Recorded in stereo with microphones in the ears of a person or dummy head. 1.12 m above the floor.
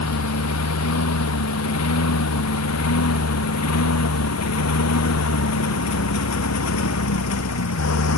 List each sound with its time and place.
0.0 s a lawn mower: 90° left; by 8.2 s 85° left